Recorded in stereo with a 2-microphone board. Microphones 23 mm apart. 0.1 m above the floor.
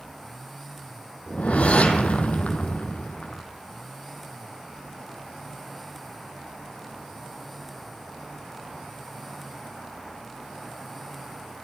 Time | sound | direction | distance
1.3 | a whoosh | 70° left (ahead or behind) | 1.3 m